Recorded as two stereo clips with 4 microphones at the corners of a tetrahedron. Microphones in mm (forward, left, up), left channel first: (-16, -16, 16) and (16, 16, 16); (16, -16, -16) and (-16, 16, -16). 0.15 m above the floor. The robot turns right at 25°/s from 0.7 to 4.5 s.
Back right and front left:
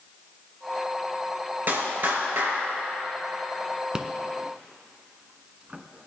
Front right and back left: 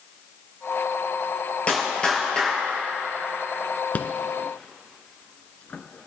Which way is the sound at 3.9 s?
25° right.